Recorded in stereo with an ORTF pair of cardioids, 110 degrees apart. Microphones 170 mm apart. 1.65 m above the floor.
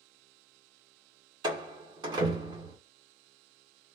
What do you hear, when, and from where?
1.4 s a door slam: 25° right, 1.4 m